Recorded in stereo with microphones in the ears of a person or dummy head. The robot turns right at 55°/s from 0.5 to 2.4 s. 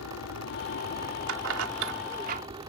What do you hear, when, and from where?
0.0 s an aircraft: 100° left; by 2.7 s 155° right
1.3 s keys jangling: 70° right (ahead or behind); by 2.4 s 45° right (ahead or behind)